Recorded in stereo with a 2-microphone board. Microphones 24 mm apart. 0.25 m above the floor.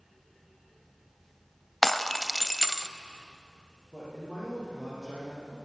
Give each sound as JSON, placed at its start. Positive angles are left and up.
{"t": 1.8, "sound": "breaking glass", "side_deg": 10, "distance_m": 0.6}
{"t": 3.9, "sound": "a man speaking", "side_deg": -15, "distance_m": 8.5}